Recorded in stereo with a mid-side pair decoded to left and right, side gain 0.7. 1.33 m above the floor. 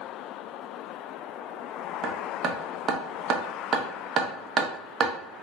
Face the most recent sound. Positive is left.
turn(degrees=-40)